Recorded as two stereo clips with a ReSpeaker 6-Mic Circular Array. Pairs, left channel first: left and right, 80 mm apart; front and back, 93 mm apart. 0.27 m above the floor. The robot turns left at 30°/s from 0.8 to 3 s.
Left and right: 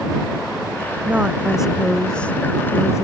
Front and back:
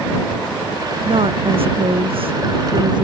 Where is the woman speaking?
160° right; by 3.0 s 145° left.